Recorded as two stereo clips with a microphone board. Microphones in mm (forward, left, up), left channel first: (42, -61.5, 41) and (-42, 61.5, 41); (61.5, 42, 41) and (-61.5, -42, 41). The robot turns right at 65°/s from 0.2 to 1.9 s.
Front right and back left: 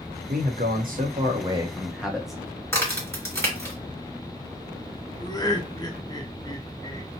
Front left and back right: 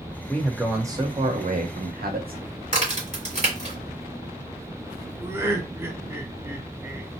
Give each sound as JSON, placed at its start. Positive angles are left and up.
{"t": 0.3, "sound": "a man speaking", "azimuth_deg": 110, "distance_m": 0.8}
{"t": 2.7, "sound": "a crack", "azimuth_deg": -120, "distance_m": 1.6}
{"t": 5.2, "sound": "laughter", "azimuth_deg": -90, "distance_m": 0.7}